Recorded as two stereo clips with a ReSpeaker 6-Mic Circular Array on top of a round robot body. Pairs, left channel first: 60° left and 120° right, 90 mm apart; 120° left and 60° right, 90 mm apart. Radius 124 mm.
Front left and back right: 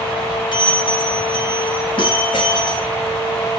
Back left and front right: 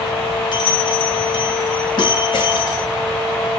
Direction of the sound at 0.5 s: 90° left.